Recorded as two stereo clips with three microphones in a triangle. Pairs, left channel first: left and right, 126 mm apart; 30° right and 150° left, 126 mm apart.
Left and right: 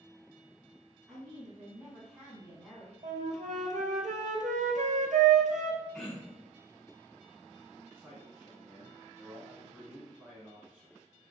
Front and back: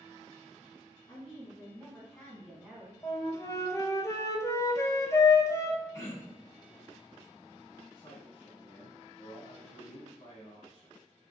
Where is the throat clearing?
5° right, 1.4 m.